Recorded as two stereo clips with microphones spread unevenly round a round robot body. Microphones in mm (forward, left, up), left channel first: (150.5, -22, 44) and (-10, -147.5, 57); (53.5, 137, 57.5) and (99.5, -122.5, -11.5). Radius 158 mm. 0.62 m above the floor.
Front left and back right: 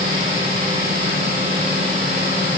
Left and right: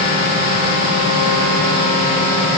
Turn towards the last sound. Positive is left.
No sound to turn to.